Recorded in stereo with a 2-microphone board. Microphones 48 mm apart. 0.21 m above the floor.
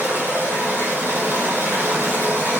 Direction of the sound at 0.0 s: 60° right (ahead or behind).